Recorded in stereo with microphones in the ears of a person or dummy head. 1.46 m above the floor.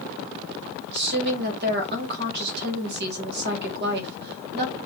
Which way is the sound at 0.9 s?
65° right (ahead or behind).